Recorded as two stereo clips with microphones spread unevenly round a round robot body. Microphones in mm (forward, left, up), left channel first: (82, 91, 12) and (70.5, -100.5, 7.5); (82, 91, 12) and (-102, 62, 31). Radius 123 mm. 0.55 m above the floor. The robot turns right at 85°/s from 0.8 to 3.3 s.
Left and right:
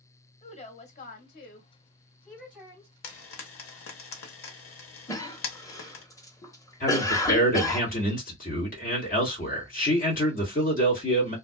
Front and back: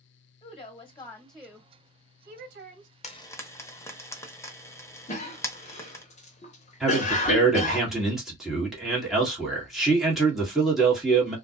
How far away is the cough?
About 1.0 m.